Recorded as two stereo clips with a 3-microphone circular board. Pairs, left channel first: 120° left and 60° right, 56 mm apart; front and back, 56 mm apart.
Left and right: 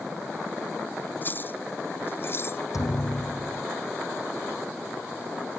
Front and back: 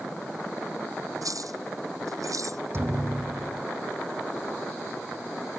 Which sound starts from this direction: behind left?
A thud, at 2.7 s.